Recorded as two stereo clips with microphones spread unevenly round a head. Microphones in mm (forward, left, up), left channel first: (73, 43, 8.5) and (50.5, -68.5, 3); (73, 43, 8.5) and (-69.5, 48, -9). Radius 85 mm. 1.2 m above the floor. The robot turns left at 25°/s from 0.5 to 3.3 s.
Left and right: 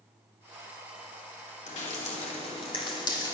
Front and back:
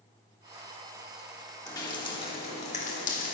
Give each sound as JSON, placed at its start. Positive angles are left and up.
{"t": 1.7, "sound": "dripping", "azimuth_deg": 65, "distance_m": 3.0}